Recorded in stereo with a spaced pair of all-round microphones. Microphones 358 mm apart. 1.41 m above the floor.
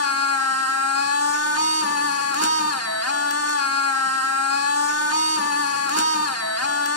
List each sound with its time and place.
0.0 s a machine running: 45° left (ahead or behind), 1.2 m